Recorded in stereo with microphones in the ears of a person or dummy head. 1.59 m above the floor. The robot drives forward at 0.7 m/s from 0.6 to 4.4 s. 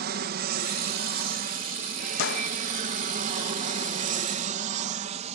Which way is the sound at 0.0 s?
50° right (ahead or behind).